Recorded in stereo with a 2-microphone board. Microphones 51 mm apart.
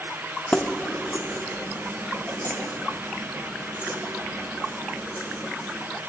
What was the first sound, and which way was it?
Keys jangling, 25° left (ahead or behind).